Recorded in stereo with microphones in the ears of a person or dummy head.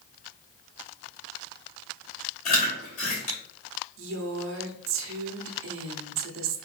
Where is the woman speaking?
65° right (ahead or behind), 0.9 m.